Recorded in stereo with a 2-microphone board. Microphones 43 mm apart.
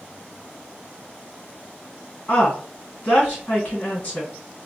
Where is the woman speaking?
40° left (ahead or behind), 1.8 m.